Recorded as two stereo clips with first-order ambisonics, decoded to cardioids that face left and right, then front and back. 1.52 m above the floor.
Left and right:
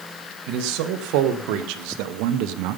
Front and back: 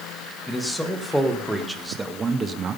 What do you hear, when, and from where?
0.5 s a man speaking: 85° right, 1.9 m; by 2.8 s 120° right, 0.8 m